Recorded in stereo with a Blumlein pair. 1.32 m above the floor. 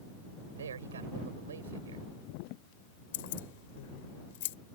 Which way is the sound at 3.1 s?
55° left.